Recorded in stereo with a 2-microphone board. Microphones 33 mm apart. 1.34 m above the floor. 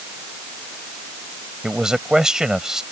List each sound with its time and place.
1.6 s a man speaking: 20° right (ahead or behind); by 2.8 s 15° right (ahead or behind)